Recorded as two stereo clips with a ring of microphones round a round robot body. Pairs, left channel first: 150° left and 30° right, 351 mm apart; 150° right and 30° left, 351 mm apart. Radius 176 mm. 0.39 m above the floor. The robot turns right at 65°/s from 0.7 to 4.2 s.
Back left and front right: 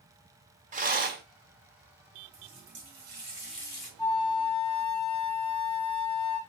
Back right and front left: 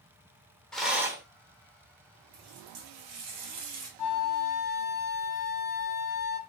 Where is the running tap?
20° right, 2 m; by 3.9 s 85° left, 2 m.